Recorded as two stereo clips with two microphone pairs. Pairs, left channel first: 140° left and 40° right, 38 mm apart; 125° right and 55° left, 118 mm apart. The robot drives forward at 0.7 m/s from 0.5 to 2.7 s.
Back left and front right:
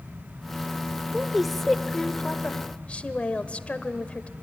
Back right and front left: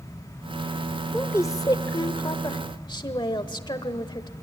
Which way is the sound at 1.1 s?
95° right.